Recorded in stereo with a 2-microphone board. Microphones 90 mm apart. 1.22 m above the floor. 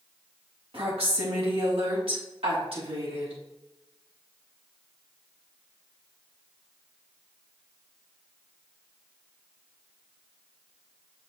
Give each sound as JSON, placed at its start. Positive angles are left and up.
{"t": 0.7, "sound": "a woman speaking", "side_deg": -75, "distance_m": 2.5}